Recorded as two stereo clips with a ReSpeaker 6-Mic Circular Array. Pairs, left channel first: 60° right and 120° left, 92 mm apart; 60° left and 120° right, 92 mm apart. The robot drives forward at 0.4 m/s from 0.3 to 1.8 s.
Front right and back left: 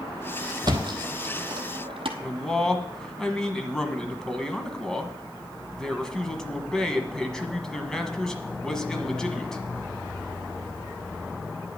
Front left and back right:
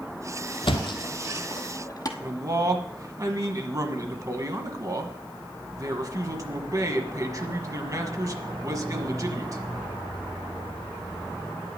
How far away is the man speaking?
About 1.3 m.